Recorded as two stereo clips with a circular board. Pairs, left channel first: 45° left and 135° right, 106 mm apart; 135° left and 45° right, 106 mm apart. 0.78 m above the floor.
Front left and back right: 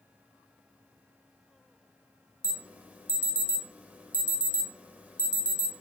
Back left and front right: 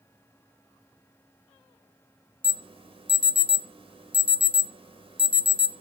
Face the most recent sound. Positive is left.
turn(degrees=-60)